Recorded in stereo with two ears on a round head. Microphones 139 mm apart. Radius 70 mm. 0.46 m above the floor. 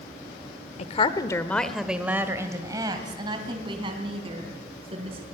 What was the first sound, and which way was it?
A woman speaking, 45° left (ahead or behind).